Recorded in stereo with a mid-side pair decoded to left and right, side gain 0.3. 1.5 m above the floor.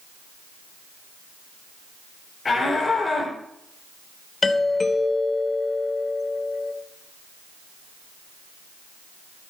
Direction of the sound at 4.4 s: 50° left.